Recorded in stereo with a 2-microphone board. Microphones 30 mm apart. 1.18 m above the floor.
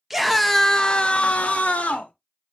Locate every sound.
0.1 s a scream: 10° right (ahead or behind), 0.6 m; by 2.1 s 60° left (ahead or behind), 0.9 m